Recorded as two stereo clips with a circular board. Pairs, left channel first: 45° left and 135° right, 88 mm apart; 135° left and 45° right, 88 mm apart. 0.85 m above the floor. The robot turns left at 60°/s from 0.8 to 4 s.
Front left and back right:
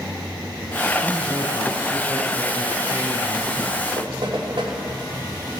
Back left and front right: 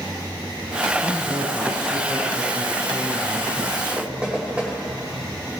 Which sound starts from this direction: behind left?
A man speaking, at 1.0 s.